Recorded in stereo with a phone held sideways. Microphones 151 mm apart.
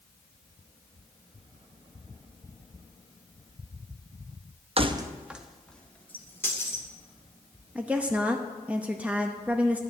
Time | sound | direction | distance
4.8 | keys jangling | 40° right (ahead or behind) | 0.6 m
7.8 | a woman speaking | 10° right (ahead or behind) | 0.7 m